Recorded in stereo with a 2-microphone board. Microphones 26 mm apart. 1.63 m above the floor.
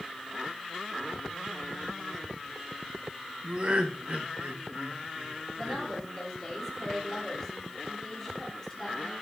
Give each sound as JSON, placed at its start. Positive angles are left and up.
{"t": 3.4, "sound": "laughter", "side_deg": -45, "distance_m": 1.6}
{"t": 5.5, "sound": "a woman speaking", "side_deg": 10, "distance_m": 3.5}